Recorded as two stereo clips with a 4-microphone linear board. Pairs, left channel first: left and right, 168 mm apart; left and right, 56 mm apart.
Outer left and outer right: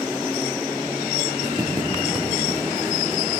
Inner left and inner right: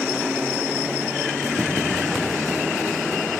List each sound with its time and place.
1.4 s footsteps: 5° left (ahead or behind), 8 m; by 3.2 s 15° right (ahead or behind), 8 m